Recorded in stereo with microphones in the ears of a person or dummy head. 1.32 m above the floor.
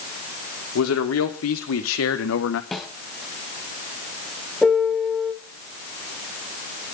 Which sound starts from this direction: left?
A man speaking, at 0.8 s.